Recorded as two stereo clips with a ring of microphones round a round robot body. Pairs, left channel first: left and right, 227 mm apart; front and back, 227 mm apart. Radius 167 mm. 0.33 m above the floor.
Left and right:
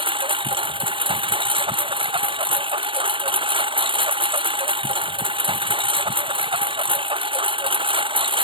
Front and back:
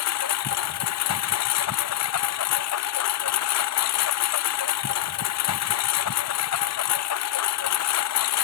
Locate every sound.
0.0 s a lawn mower: 20° right